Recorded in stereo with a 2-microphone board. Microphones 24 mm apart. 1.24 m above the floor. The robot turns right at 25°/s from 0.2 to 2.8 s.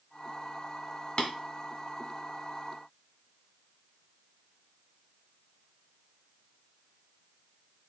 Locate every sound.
1.2 s tapping: 45° left (ahead or behind), 1.4 m